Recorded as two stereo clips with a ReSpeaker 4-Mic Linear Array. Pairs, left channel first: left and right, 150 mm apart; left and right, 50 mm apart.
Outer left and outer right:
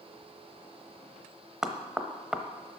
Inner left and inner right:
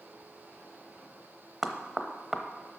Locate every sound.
1.6 s knocking: 5° right (ahead or behind), 0.9 m